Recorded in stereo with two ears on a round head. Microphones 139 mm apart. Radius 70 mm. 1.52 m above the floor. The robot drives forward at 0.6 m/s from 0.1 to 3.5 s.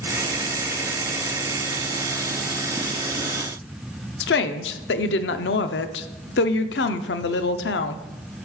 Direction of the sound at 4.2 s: 90° left.